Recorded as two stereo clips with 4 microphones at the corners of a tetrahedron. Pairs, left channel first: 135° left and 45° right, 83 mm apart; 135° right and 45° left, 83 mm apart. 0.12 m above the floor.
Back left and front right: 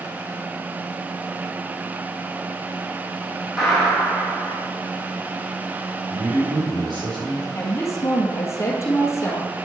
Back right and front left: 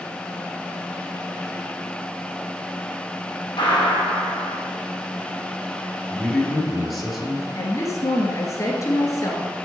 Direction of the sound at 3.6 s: 125° right.